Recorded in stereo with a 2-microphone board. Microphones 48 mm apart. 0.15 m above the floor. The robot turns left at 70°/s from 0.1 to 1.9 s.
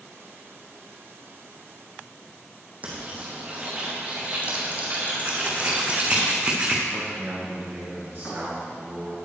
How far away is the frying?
About 2.5 m.